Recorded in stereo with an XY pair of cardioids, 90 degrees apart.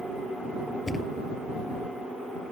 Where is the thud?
30° left.